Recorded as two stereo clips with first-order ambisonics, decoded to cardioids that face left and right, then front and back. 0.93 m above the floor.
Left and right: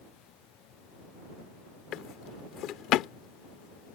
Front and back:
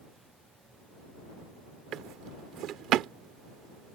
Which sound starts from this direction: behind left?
A drawer, at 1.9 s.